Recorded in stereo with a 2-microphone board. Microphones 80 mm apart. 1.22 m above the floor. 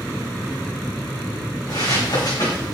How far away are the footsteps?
About 4.5 m.